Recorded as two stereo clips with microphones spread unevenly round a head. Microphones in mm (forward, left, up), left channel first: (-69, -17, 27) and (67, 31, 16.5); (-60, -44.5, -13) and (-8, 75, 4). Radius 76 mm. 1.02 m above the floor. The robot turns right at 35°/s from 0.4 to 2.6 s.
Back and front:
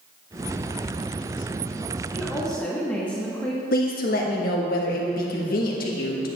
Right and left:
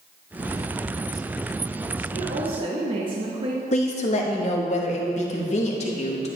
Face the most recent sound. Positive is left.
turn(degrees=-140)